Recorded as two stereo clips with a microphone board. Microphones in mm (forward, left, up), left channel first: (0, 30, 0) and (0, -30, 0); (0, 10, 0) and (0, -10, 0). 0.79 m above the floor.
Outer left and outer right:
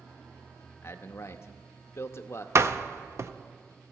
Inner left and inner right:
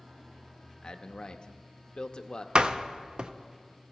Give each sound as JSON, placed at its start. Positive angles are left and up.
{"t": 0.8, "sound": "a man speaking", "side_deg": 50, "distance_m": 0.7}
{"t": 2.5, "sound": "a door slam", "side_deg": -50, "distance_m": 0.5}